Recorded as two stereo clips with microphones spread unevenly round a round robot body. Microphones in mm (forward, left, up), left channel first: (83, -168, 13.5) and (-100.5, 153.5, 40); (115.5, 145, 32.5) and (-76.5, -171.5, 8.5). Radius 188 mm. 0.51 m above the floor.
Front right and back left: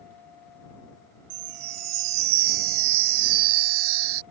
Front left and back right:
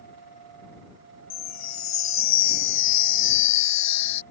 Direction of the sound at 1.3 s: 110° left.